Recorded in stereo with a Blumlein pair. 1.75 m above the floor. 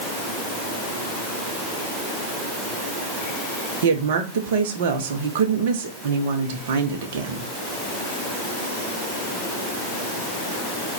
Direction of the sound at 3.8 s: 55° right.